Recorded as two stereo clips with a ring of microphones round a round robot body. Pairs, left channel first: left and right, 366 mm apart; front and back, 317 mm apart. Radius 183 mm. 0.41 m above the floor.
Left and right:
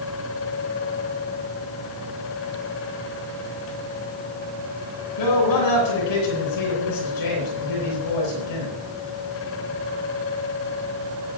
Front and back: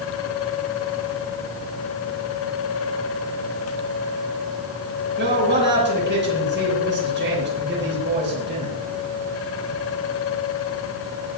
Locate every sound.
5.2 s a man speaking: 125° left, 9 m